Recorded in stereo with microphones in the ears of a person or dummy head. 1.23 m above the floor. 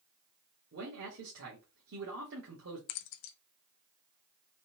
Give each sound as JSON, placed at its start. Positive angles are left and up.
{"t": 0.7, "sound": "a man speaking", "side_deg": -60, "distance_m": 1.5}
{"t": 2.9, "sound": "keys jangling", "side_deg": 60, "distance_m": 0.6}